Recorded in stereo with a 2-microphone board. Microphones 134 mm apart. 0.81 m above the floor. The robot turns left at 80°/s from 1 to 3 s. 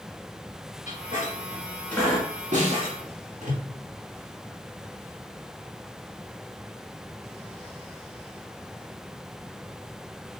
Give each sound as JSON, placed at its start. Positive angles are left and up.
{"t": 0.9, "sound": "a squeak", "side_deg": 70, "distance_m": 1.6}
{"t": 2.5, "sound": "a snare drum", "side_deg": -65, "distance_m": 1.6}